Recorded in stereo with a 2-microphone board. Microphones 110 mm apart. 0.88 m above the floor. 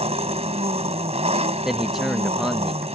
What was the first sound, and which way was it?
An engine running, 75° right (ahead or behind).